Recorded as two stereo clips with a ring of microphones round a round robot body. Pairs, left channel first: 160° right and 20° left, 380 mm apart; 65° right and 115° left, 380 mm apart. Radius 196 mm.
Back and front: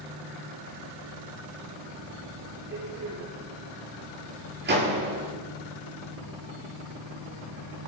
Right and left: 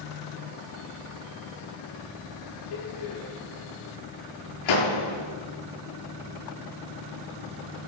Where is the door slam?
40° right, 9 m.